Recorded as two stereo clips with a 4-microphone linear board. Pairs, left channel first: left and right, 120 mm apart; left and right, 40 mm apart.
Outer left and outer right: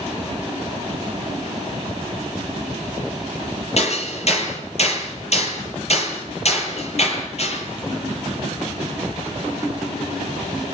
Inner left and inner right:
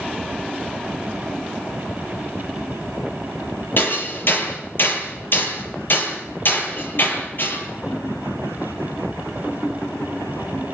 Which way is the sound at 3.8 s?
60° left (ahead or behind).